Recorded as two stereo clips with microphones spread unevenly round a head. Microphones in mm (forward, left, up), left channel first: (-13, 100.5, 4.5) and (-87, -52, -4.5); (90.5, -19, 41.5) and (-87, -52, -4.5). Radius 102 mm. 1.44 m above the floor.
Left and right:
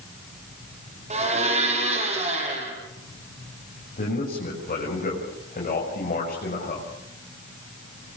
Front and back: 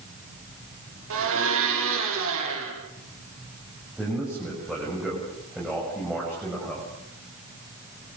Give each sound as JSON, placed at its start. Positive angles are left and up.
{"t": 1.1, "sound": "a blender", "azimuth_deg": -165, "distance_m": 8.5}
{"t": 4.0, "sound": "a man speaking", "azimuth_deg": 105, "distance_m": 7.0}